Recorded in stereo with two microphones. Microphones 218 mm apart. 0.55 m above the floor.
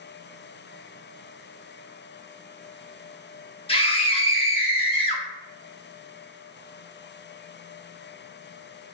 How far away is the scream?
About 0.7 m.